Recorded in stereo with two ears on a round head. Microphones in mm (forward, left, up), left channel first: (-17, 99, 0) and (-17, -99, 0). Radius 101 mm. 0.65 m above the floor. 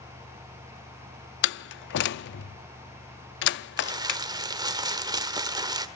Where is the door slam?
50° left (ahead or behind), 0.6 m.